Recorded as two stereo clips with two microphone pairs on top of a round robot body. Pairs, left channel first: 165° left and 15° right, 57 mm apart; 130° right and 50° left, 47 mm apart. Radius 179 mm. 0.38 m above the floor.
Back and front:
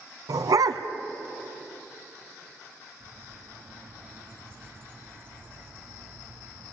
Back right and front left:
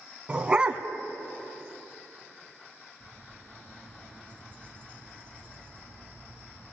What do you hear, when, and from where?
0.3 s a dog barking: 25° right, 1.3 m
3.0 s a bird: 65° right, 4 m